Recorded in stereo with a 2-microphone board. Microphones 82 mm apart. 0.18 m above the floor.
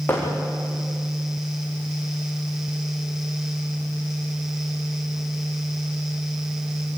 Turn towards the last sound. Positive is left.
turn(degrees=25)  # may be behind; listen again after turning